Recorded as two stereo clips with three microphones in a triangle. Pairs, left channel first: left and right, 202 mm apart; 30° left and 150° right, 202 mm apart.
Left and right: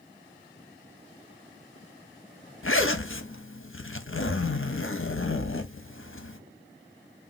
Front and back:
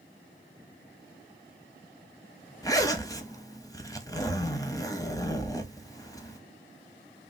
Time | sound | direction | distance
2.6 | a zipper | 100° left | 0.5 m